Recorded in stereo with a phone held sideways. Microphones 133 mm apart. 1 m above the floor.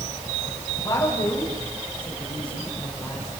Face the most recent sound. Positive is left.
turn(degrees=10)  # may be behind; listen again after turning